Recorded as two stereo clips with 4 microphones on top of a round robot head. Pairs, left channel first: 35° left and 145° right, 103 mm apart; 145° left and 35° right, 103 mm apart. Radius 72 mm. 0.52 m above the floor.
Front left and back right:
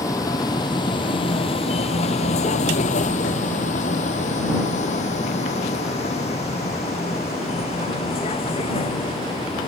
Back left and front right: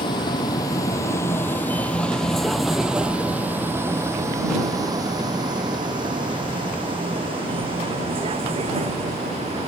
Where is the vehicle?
95° left; by 9.7 s straight ahead.